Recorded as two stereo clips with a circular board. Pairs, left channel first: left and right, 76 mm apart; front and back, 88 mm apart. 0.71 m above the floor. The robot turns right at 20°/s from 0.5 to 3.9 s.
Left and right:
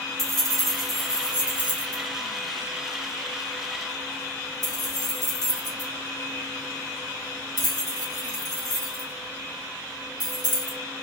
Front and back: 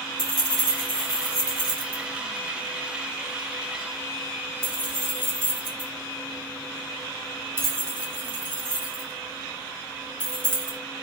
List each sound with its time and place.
0.2 s keys jangling: 175° left, 1.3 m; by 10.8 s 115° right, 1.3 m